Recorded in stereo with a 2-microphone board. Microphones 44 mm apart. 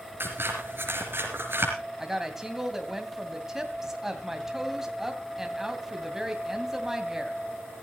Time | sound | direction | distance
0.2 | scissors | 55° right (ahead or behind) | 4.5 m
2.0 | a woman speaking | 10° right (ahead or behind) | 2.5 m